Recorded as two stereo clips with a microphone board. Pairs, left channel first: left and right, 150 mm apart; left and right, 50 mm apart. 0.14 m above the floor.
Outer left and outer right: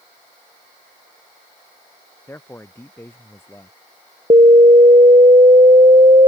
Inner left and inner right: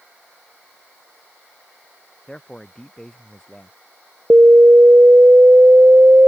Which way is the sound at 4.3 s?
45° right (ahead or behind).